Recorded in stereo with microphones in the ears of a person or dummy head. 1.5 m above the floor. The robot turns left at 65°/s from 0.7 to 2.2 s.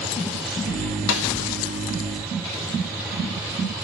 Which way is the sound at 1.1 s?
75° left (ahead or behind).